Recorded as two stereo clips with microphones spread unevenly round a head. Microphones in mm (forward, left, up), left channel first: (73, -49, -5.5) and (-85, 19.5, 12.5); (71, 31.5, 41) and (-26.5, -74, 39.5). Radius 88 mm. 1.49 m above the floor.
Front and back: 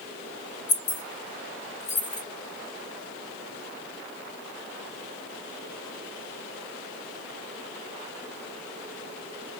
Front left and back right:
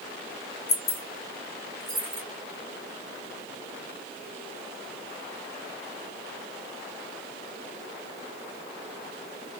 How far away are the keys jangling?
About 1.0 m.